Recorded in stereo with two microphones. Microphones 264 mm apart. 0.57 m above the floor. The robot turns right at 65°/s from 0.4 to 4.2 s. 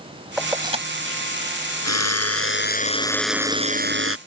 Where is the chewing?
I don't hear chewing.